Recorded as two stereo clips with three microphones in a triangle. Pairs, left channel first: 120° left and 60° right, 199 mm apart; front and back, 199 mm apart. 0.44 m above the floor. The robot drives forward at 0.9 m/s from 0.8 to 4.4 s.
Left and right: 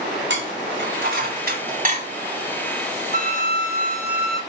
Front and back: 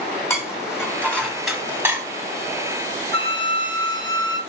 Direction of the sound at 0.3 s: 75° right.